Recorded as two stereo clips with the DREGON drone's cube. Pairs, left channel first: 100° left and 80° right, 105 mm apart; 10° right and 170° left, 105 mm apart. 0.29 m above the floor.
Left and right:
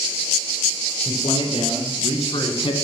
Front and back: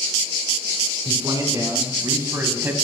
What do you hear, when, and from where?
1.1 s a man speaking: 120° left, 3 m; by 2.7 s 100° left, 1.9 m